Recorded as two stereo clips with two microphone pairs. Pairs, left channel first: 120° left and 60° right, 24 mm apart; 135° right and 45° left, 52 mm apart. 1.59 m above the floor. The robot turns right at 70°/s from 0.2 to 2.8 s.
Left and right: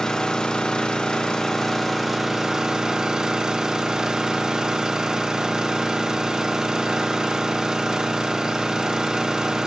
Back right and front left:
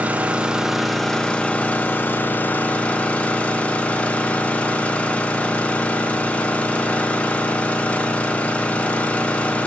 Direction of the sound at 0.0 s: 90° left.